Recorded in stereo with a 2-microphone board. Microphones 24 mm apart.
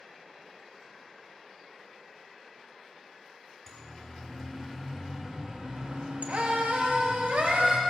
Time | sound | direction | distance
3.7 | a siren | 10° left (ahead or behind) | 3 m